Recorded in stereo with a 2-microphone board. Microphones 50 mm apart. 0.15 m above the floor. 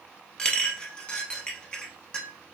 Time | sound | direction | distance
0.4 | a clink | 20° left (ahead or behind) | 0.6 m